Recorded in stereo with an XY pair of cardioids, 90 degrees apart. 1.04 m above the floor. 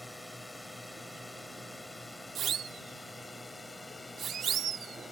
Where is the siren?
65° right.